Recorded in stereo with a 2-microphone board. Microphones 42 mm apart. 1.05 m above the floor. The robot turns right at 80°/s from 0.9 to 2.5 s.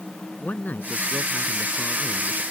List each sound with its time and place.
0.4 s a man speaking: 45° left; by 2.4 s 165° left